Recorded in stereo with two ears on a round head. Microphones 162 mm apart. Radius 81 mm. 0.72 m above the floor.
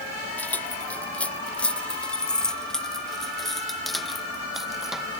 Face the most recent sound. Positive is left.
turn(degrees=-5)  # may be behind; listen again after turning